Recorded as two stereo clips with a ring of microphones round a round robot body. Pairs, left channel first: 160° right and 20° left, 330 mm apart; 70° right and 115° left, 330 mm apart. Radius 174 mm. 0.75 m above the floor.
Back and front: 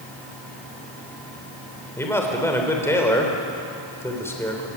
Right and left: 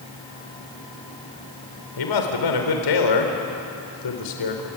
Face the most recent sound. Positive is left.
turn(degrees=-75)